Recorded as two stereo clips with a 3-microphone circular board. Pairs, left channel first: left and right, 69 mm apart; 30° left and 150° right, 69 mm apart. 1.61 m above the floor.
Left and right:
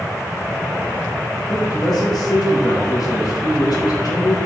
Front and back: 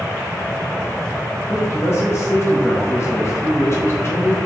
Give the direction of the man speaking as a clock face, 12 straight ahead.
9 o'clock.